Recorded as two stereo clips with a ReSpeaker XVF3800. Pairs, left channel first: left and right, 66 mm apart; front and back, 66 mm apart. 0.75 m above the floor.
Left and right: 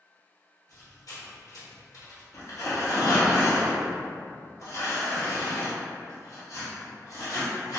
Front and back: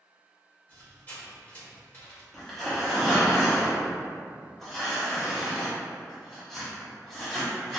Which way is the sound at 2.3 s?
85° left.